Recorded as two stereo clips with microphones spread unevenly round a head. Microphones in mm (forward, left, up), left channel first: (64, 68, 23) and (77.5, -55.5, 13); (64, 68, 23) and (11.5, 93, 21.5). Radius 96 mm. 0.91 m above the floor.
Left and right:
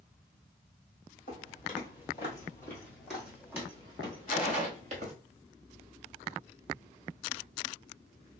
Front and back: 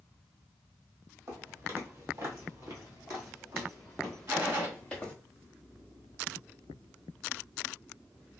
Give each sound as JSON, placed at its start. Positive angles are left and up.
{"t": 1.3, "sound": "footsteps", "azimuth_deg": 140, "distance_m": 1.7}
{"t": 4.3, "sound": "a gunshot", "azimuth_deg": 165, "distance_m": 2.0}